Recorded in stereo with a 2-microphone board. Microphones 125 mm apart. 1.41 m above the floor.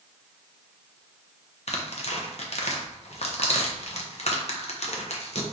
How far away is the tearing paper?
About 0.7 m.